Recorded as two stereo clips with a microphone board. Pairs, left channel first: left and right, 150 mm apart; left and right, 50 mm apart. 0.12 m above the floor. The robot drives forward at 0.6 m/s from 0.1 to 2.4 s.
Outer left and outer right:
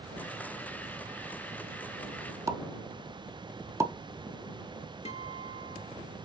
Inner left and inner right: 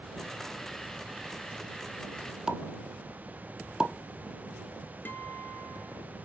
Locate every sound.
2.5 s a pop: 20° right (ahead or behind), 0.7 m
5.0 s a guitar: 45° left (ahead or behind), 0.8 m